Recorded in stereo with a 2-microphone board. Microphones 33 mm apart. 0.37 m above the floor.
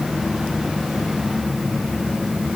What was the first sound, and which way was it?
Only background noise.